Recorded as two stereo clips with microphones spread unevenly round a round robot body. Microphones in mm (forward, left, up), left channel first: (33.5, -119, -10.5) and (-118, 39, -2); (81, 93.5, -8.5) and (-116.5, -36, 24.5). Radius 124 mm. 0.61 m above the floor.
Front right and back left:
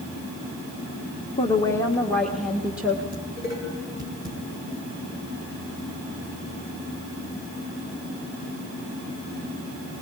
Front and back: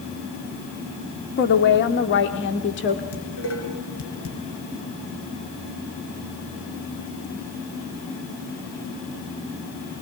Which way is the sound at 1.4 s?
20° left.